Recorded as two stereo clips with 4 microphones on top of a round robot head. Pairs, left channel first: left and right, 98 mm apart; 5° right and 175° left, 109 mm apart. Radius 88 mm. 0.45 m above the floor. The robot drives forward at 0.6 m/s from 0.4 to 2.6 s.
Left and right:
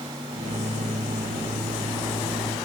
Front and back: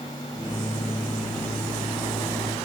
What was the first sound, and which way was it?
Only background noise.